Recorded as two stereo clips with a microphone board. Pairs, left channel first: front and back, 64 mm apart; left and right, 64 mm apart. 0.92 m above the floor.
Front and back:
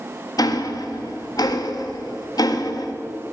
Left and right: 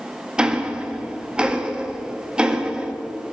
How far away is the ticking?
About 0.8 m.